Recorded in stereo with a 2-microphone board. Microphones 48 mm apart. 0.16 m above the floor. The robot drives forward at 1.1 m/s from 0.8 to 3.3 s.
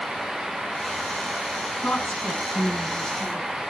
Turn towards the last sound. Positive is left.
turn(degrees=25)  # may be behind; listen again after turning